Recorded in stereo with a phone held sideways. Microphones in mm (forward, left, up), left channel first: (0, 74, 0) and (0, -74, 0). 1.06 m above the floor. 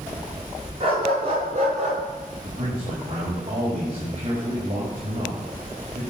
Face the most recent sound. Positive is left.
turn(degrees=-35)  # may be behind; listen again after turning